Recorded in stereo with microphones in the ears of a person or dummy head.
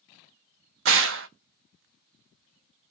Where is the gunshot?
65° right (ahead or behind), 0.5 m.